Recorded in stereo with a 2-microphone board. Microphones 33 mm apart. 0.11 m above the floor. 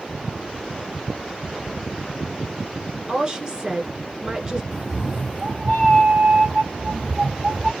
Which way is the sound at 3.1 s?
25° right (ahead or behind).